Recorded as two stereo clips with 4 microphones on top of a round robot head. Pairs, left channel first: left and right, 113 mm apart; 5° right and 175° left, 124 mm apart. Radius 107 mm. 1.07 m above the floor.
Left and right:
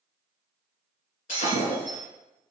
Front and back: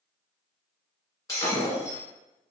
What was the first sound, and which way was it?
Breaking glass, 60° left.